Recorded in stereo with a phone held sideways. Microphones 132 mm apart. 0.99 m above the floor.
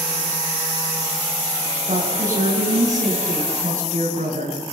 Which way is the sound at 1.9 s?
80° right.